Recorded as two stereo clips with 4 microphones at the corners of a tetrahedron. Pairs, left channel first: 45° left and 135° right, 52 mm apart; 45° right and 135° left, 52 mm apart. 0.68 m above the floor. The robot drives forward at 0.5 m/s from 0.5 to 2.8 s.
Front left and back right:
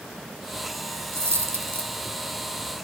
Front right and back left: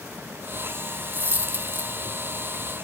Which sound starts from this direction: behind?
A dropped coin, at 1.1 s.